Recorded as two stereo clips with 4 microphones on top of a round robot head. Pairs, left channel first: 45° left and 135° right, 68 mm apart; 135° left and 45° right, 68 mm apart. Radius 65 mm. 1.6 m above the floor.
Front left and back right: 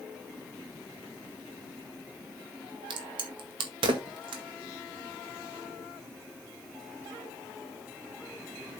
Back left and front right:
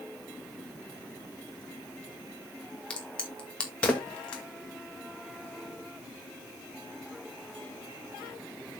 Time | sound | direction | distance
2.9 | a crack | 150° right | 1.8 m